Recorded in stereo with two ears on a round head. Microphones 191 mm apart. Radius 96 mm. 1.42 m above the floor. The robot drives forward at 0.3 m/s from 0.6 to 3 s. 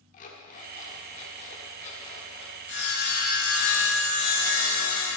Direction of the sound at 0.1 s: 35° left (ahead or behind).